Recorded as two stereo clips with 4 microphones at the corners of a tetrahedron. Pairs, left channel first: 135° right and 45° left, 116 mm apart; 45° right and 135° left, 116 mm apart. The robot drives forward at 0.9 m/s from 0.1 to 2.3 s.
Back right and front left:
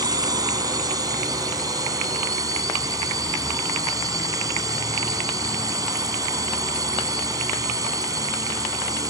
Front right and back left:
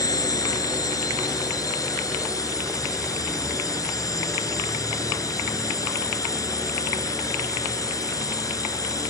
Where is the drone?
Straight ahead.